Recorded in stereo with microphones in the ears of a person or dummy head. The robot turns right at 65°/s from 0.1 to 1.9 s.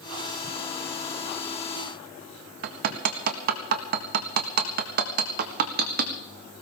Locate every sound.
2.6 s hammering: 55° right (ahead or behind), 1.5 m